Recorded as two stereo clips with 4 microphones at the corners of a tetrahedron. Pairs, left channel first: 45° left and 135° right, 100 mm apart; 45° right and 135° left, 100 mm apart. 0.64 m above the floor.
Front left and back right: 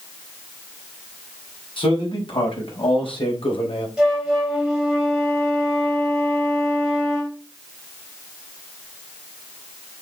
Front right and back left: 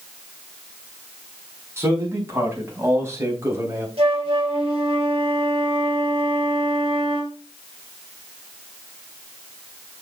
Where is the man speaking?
75° left, 5 m.